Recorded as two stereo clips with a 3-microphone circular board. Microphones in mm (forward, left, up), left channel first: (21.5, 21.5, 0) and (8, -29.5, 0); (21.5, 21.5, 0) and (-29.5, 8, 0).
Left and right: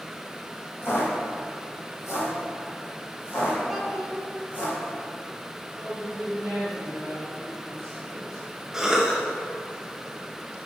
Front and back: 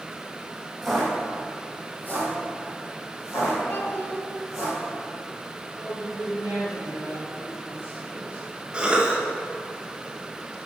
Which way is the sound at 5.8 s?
5° right.